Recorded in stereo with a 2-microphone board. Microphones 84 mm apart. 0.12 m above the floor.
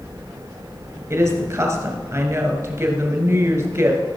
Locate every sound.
1.1 s a woman speaking: 35° right (ahead or behind), 1.9 m